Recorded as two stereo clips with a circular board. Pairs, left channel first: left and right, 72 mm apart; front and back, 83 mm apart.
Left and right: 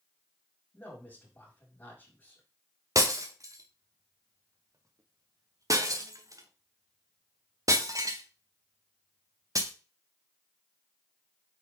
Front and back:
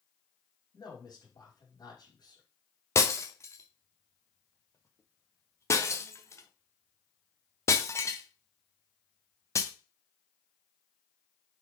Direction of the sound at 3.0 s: 55° right.